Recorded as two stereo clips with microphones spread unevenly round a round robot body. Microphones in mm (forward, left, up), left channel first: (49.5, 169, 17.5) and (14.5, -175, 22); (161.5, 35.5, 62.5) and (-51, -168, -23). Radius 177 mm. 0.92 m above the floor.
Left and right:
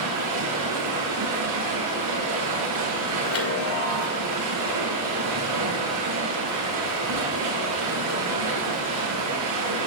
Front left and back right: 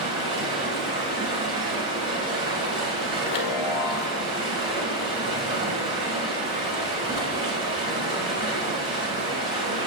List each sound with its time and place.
0.0 s running water: 60° right, 5.5 m
3.2 s a chime: 35° left, 2 m